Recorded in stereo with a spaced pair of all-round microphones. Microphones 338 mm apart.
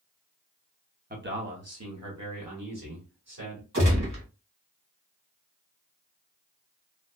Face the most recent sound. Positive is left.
turn(degrees=-55)  # may be behind; listen again after turning